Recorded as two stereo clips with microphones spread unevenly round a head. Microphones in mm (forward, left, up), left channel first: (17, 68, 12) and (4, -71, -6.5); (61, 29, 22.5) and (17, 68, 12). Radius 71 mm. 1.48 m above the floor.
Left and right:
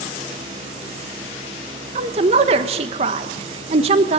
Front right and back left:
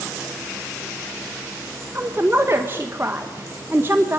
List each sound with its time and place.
1.9 s a woman speaking: 150° right, 1.5 m